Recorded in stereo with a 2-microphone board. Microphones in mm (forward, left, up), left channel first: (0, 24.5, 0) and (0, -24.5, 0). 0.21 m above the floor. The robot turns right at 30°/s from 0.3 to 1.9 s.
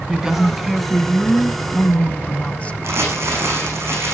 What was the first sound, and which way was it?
A woman speaking, 10° right.